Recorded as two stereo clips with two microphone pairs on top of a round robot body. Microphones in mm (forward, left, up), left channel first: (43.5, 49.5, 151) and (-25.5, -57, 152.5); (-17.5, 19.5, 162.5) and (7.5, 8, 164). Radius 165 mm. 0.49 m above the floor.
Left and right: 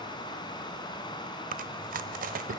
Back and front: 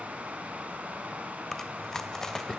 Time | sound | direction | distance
0.0 | running water | straight ahead | 2.5 m
1.5 | chewing | 130° right | 0.5 m